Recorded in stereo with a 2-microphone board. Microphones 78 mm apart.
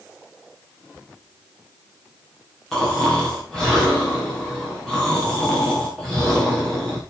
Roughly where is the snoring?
Centre.